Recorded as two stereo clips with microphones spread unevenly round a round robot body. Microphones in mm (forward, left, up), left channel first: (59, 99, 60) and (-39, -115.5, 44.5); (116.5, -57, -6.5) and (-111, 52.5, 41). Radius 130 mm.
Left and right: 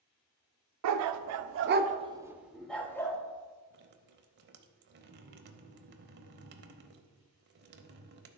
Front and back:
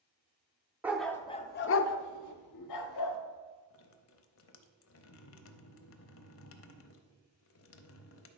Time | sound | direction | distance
0.8 | a dog barking | 120° right | 0.6 m
3.7 | dripping | 65° right | 0.7 m